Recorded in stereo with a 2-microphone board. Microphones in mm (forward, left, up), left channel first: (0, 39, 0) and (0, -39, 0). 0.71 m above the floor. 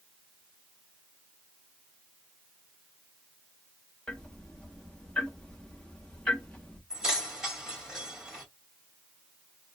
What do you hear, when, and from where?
4.1 s ticking: 10° left (ahead or behind), 1.2 m
6.9 s keys jangling: 10° right (ahead or behind), 2 m